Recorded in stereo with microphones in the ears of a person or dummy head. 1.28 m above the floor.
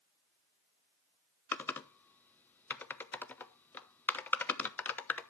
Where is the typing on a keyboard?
20° left (ahead or behind), 0.9 m.